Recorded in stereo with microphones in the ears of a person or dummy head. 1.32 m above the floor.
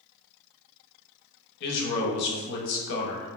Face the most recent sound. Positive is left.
turn(degrees=55)  # may be behind; listen again after turning